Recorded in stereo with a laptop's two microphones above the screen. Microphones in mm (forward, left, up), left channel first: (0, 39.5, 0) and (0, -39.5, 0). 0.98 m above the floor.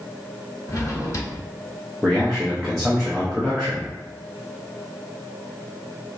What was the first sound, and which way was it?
A drawer, 45° left (ahead or behind).